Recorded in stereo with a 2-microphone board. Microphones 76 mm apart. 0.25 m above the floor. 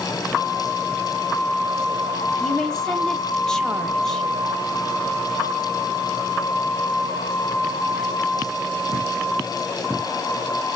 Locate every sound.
2.4 s a woman speaking: 10° left (ahead or behind), 0.9 m